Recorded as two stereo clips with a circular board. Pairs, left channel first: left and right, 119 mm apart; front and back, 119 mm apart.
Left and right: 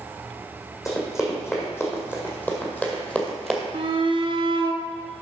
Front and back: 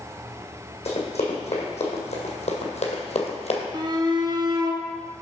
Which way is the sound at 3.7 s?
130° right.